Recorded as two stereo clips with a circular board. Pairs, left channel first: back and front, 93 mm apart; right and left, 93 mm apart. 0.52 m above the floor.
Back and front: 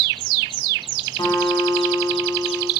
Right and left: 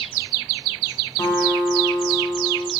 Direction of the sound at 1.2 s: 145° right.